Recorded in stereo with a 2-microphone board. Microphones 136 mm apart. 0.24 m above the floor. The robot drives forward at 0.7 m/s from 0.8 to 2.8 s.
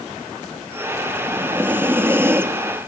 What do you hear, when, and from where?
1.2 s breathing: 15° right (ahead or behind), 3.5 m; by 2.8 s 20° right (ahead or behind), 2.5 m